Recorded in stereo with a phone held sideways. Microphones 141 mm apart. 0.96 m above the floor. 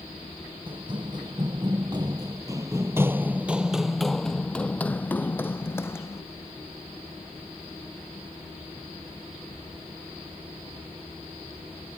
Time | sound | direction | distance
0.7 | running footsteps | 35° right (ahead or behind) | ?